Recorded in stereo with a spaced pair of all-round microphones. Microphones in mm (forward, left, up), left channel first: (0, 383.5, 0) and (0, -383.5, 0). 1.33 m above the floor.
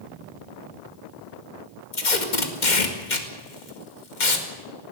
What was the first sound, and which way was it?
Tape being pulled, 85° left.